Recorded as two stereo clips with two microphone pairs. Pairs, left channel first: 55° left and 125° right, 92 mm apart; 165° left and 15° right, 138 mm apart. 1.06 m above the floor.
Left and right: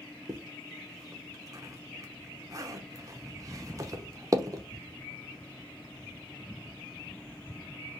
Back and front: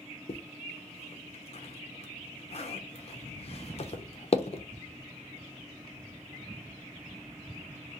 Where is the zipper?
170° right, 0.5 m.